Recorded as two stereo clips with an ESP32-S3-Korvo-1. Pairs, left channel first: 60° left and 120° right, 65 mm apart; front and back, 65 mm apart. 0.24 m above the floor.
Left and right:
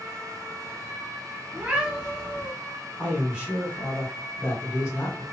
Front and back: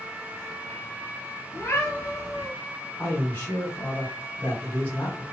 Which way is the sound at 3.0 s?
50° right.